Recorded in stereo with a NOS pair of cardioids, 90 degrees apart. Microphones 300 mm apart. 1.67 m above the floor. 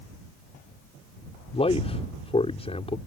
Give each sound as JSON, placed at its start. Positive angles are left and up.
{"t": 1.5, "sound": "a man speaking", "azimuth_deg": 20}